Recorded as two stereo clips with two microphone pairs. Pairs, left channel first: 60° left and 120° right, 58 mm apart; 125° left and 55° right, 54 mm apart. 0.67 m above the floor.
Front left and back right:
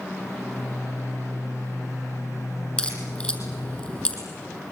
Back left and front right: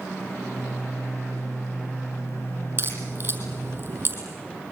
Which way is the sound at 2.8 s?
10° right.